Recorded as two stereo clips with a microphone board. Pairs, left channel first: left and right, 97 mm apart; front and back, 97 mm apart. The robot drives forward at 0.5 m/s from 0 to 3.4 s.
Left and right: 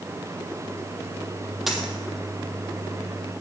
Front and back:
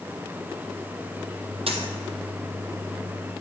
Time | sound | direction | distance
1.7 | a dropped coin | 175° right | 1.2 m